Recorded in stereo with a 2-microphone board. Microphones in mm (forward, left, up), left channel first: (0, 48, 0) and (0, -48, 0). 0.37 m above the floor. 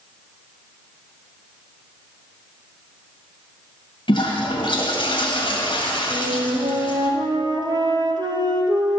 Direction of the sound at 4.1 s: 60° left (ahead or behind).